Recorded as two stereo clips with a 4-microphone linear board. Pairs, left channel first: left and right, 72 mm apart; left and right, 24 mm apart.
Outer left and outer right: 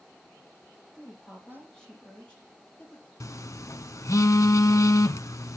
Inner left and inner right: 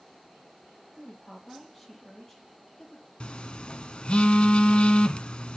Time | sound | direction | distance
0.9 | a woman speaking | 5° left (ahead or behind) | 6 m
3.2 | a phone buzzing | 45° left (ahead or behind) | 0.6 m